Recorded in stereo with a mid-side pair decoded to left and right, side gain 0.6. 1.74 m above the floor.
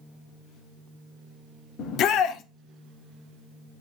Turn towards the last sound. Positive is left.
turn(degrees=60)